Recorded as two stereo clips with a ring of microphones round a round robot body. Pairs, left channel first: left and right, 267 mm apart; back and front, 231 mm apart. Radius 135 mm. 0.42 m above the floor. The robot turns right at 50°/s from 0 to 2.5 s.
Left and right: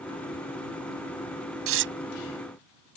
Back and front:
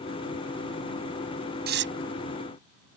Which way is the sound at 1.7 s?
55° right.